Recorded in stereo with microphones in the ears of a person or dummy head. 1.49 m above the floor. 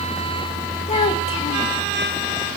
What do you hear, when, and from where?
0.9 s a child speaking: 35° left (ahead or behind), 3 m